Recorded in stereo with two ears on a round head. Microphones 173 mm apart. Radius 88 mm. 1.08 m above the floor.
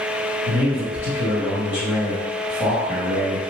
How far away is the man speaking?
About 1.7 m.